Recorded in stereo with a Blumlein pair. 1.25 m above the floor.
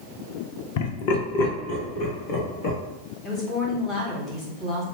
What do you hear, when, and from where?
0.8 s laughter: 50° left, 0.5 m; by 2.8 s 45° left, 1.5 m
3.2 s a woman speaking: 20° left, 1.2 m